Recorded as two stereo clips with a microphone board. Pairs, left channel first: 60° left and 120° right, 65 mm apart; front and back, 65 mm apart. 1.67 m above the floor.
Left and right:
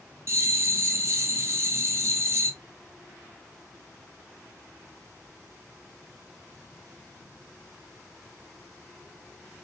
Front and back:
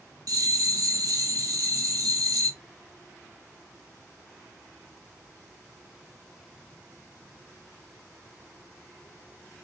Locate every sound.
0.3 s a bell: 160° right, 0.8 m